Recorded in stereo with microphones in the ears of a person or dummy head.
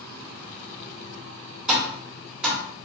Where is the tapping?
Centre (ahead or behind), 0.7 m.